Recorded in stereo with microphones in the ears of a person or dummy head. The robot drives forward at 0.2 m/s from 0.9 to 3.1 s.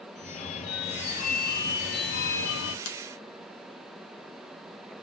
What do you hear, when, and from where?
0.1 s a phone ringing: 45° left (ahead or behind), 0.7 m; by 2.8 s 70° left (ahead or behind), 0.5 m
2.9 s a finger snap: 80° left, 1.2 m